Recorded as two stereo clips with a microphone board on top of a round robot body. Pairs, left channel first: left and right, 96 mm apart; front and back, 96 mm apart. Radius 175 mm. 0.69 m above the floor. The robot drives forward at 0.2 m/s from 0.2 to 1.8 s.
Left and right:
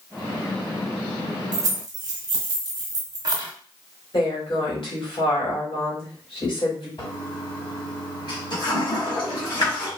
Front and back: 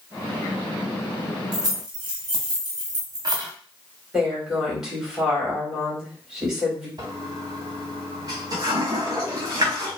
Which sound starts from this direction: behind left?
A toilet flushing, at 7.0 s.